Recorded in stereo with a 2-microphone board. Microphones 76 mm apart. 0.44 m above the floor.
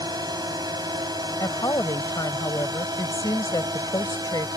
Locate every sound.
0.0 s a drone: 60° right (ahead or behind); by 4.6 s 55° right (ahead or behind)
1.4 s a woman speaking: 60° left (ahead or behind)